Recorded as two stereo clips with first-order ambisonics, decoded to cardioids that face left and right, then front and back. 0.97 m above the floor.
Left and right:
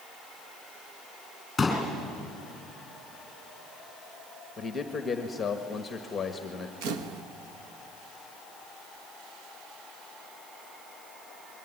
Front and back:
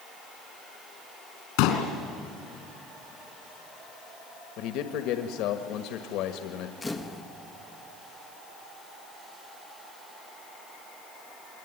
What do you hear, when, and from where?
1.6 s a pop: 5° left, 4.5 m
4.6 s a man speaking: 15° left, 1.5 m
6.8 s a camera shutter: 80° right, 1.4 m